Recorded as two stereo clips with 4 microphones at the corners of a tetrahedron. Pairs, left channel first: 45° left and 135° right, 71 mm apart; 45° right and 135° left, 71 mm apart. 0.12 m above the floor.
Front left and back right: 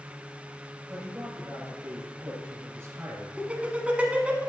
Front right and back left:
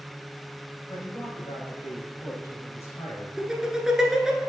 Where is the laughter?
160° right, 1.1 m.